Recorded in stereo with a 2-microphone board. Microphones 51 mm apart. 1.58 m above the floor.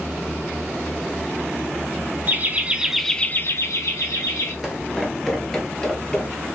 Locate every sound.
2.3 s laughter: 40° right (ahead or behind), 1.0 m; by 4.5 s 85° left, 1.4 m
4.6 s footsteps: 5° right (ahead or behind), 1.6 m; by 6.5 s 15° left (ahead or behind), 2 m